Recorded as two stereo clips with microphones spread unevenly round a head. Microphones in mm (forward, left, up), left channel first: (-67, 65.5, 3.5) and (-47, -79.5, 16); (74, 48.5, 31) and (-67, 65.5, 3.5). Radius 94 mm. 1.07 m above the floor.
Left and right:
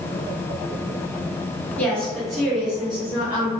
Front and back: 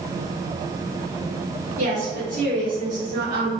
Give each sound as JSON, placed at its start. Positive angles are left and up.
{"t": 1.8, "sound": "a woman speaking", "azimuth_deg": 175, "distance_m": 1.8}